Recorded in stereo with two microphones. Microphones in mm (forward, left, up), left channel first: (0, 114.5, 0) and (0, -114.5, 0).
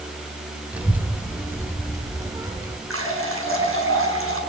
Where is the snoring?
No snoring in this recording.